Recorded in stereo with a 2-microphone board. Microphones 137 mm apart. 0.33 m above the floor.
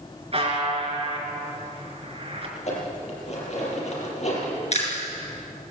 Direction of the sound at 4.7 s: 50° left (ahead or behind).